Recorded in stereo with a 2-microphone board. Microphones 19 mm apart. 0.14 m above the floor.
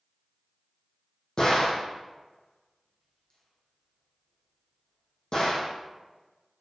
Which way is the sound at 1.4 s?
45° left (ahead or behind).